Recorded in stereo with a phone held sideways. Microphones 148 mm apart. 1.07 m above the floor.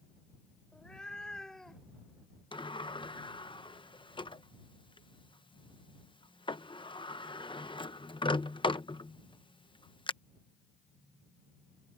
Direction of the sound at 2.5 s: 35° left (ahead or behind).